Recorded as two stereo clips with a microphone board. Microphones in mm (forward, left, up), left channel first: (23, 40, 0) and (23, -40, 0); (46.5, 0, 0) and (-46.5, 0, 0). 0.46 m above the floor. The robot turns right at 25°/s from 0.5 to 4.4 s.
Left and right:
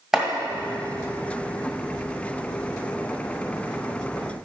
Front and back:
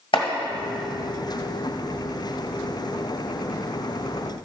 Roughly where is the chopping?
Ahead.